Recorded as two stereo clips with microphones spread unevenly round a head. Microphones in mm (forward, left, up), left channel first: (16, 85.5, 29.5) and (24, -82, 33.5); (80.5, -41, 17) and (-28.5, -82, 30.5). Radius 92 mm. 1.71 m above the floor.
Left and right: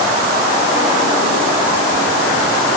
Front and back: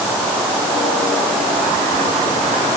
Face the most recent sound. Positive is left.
No sound to turn to.